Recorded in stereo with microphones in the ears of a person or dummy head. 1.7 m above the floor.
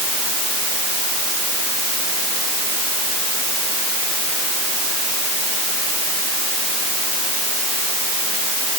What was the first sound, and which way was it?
Only background noise.